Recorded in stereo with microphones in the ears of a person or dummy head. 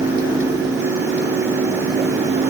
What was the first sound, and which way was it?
Only background noise.